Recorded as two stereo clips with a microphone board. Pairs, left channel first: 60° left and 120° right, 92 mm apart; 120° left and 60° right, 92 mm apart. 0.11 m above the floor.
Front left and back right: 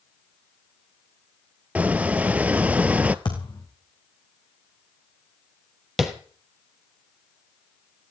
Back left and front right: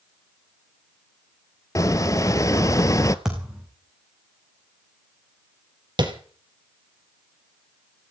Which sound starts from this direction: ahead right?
Tapping, at 6.0 s.